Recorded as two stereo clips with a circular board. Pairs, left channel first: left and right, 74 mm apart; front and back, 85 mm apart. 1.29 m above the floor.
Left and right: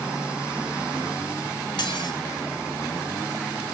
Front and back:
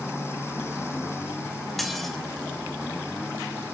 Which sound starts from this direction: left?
Dishes clattering, at 1.8 s.